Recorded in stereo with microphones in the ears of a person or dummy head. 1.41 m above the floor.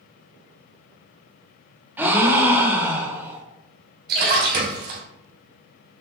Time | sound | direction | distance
2.0 | a gasp | 10° right (ahead or behind) | 1.0 m
4.1 | a splash | 60° right (ahead or behind) | 1.9 m